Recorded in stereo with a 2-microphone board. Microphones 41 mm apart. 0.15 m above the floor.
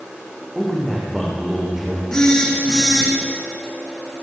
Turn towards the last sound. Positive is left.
turn(degrees=15)  # may be behind; listen again after turning